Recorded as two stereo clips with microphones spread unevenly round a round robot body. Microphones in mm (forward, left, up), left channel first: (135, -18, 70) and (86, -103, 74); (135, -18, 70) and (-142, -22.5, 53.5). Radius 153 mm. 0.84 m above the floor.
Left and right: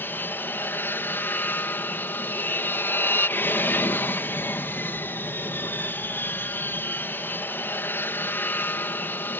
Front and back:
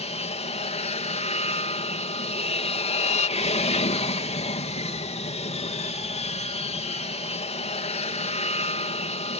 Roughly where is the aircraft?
Ahead left.